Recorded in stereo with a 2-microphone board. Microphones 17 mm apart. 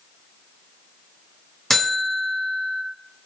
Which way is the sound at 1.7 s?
15° left (ahead or behind).